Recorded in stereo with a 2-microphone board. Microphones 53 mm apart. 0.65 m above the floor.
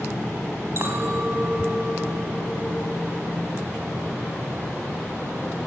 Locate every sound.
0.8 s a clink: 50° right (ahead or behind), 3 m